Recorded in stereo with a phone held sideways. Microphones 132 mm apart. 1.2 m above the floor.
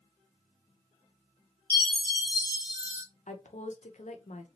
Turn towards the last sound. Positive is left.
turn(degrees=75)  # may be behind; listen again after turning